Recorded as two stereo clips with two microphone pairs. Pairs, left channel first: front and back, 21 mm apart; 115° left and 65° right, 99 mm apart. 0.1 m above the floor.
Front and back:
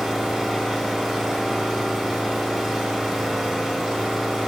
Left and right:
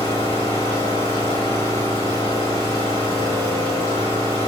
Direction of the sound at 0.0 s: 110° left.